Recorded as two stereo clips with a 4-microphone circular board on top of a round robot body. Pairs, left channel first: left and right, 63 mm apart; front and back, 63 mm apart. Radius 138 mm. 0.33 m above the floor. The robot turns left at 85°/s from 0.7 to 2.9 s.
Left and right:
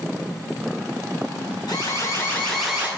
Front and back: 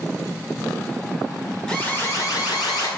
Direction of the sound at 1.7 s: 80° left.